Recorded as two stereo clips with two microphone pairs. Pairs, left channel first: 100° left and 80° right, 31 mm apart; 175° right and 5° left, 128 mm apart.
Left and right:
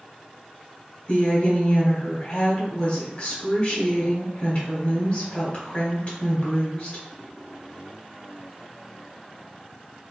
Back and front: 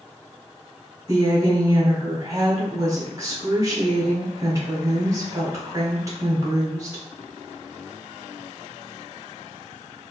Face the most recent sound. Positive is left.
turn(degrees=65)